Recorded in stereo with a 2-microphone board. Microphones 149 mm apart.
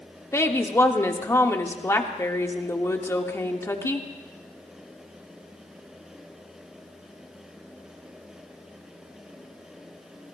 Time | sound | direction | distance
0.3 | a woman speaking | 20° left (ahead or behind) | 1.2 m